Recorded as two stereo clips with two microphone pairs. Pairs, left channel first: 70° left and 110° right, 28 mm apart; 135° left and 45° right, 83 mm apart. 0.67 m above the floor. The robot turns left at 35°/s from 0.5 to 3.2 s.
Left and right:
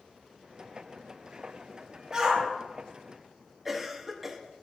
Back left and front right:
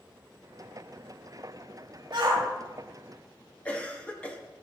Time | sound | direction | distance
2.1 | a shout | 55° right | 1.6 m
3.6 | a cough | 175° right | 0.7 m